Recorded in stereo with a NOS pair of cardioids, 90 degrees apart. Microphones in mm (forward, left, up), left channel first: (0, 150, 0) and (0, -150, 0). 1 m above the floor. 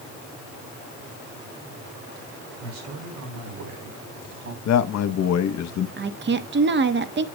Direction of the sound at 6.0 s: 40° right.